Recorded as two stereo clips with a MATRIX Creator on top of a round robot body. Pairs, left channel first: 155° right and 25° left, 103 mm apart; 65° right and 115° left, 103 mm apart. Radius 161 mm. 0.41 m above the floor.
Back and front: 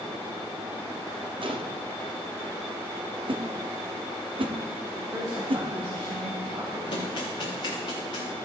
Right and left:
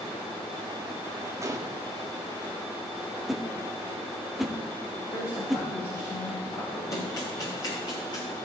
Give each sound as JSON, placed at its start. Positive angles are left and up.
{"t": 1.4, "sound": "a gunshot", "azimuth_deg": 50, "distance_m": 1.3}
{"t": 3.3, "sound": "a whoosh", "azimuth_deg": 25, "distance_m": 1.4}
{"t": 5.0, "sound": "a woman speaking", "azimuth_deg": -30, "distance_m": 4.0}
{"t": 6.9, "sound": "running footsteps", "azimuth_deg": -120, "distance_m": 5.5}